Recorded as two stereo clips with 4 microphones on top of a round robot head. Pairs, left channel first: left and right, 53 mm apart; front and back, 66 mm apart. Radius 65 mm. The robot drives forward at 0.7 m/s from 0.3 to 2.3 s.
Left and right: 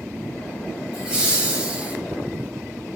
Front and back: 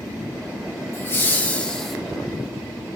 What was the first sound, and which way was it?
Laughter, 20° right.